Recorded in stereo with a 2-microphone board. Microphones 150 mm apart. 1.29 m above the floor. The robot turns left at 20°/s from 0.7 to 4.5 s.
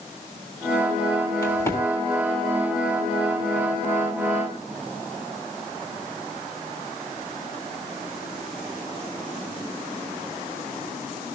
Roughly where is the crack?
Left.